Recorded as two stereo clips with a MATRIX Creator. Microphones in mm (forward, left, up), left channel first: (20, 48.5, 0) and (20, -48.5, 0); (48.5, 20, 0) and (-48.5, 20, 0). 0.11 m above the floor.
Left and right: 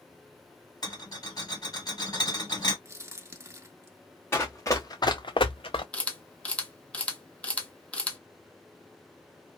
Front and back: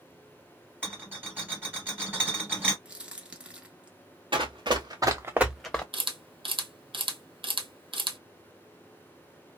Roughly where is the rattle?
Behind left.